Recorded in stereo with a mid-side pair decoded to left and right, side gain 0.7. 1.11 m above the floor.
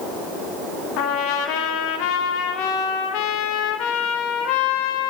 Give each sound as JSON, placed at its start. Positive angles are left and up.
{"t": 1.0, "sound": "a trumpet", "azimuth_deg": 70, "distance_m": 1.2}